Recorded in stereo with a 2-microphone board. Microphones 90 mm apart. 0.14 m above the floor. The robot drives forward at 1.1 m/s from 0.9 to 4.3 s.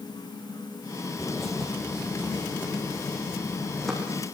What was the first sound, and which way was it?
A bird, 5° left (ahead or behind).